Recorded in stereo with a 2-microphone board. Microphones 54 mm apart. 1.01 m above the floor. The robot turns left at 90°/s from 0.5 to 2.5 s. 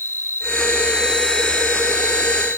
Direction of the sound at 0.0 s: 110° right.